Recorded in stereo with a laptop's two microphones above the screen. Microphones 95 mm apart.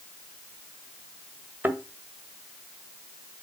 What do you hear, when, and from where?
1.6 s a thud: 20° right (ahead or behind), 1.5 m